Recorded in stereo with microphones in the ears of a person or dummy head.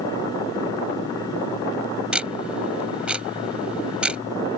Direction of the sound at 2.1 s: Centre (ahead or behind).